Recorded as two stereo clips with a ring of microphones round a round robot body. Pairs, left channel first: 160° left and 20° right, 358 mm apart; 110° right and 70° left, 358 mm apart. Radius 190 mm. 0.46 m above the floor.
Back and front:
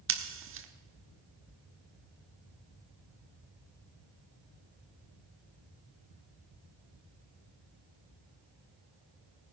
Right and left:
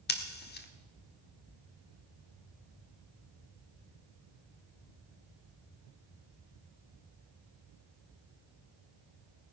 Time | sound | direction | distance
0.1 | scissors | 60° right | 1.4 m